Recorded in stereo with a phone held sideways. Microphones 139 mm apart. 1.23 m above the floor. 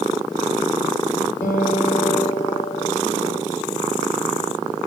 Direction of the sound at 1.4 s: 80° left.